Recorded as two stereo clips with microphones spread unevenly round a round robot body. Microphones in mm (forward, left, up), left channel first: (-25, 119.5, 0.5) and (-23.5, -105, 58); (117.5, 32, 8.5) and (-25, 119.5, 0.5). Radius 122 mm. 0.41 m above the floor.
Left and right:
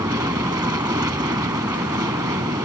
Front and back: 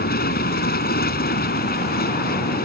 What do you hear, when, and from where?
0.0 s an aircraft: 10° right